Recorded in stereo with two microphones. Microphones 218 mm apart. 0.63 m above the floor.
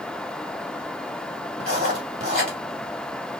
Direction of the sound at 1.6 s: 45° right (ahead or behind).